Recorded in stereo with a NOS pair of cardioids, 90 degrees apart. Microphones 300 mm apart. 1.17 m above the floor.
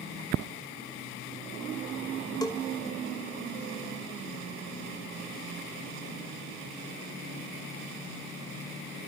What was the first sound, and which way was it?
A bell, 15° left.